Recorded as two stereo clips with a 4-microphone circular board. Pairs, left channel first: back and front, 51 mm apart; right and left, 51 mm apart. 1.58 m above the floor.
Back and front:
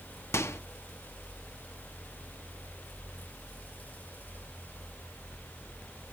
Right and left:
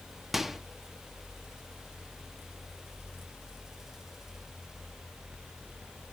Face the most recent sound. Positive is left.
turn(degrees=175)